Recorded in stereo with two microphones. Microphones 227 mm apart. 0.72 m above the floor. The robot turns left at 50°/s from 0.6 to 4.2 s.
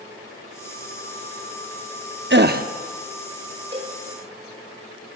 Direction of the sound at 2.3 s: 55° right (ahead or behind).